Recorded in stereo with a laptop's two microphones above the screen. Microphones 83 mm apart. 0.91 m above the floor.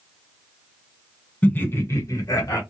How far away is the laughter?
About 1.2 m.